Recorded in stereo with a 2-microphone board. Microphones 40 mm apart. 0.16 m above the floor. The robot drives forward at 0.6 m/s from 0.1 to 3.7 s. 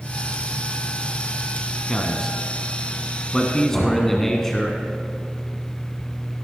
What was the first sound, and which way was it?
A man speaking, 15° left (ahead or behind).